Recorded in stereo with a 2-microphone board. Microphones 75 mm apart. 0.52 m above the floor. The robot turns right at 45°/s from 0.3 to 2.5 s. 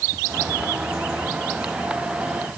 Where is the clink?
No clink in this recording.